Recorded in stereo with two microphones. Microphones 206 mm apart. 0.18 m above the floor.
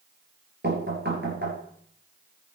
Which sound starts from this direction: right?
Knocking, at 0.6 s.